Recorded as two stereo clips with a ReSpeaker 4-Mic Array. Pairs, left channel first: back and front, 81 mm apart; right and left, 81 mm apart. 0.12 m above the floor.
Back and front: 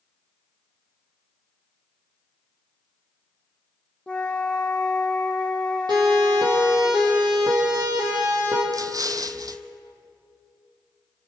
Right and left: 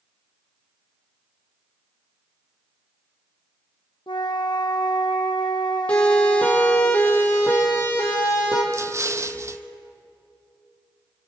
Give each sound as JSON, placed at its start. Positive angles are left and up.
{"t": 4.1, "sound": "a flute", "azimuth_deg": -100, "distance_m": 1.4}
{"t": 5.9, "sound": "a siren", "azimuth_deg": -15, "distance_m": 4.5}
{"t": 8.7, "sound": "an explosion", "azimuth_deg": 40, "distance_m": 0.8}